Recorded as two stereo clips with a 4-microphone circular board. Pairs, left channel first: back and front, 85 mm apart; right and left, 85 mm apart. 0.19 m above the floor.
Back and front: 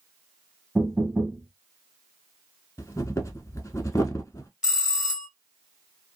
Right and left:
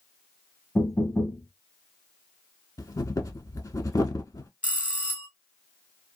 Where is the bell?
60° left, 1.1 m.